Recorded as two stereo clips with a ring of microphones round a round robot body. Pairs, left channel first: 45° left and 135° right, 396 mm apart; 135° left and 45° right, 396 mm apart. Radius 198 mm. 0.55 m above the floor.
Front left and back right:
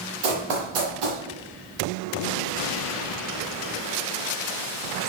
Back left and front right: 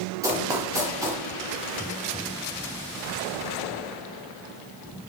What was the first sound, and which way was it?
Running footsteps, 125° right.